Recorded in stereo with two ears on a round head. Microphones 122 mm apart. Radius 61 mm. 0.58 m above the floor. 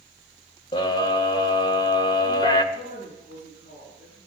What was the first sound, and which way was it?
A scream, 30° left (ahead or behind).